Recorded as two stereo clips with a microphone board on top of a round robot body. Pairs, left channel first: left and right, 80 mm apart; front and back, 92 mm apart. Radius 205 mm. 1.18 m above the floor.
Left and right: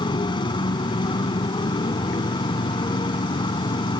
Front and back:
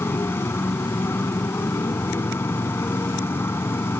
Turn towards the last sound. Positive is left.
turn(degrees=65)